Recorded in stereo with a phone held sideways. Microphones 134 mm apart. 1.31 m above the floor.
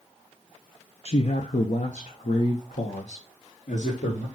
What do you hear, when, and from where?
1.1 s a man speaking: 50° left (ahead or behind), 0.8 m; by 4.3 s 75° left (ahead or behind), 2.5 m